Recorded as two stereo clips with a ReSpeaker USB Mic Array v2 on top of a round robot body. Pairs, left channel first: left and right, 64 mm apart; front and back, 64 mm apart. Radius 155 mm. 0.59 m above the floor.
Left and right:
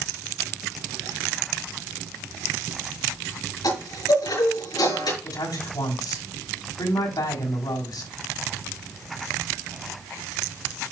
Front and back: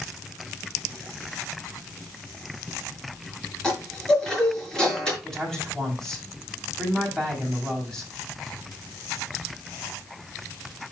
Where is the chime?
80° left, 5.5 m.